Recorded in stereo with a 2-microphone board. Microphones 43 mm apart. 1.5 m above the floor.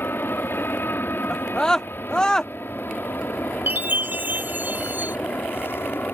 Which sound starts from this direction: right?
A chime, at 3.7 s.